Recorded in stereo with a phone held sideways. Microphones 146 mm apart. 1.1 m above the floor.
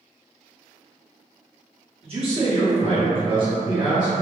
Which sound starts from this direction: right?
A man speaking, at 2.0 s.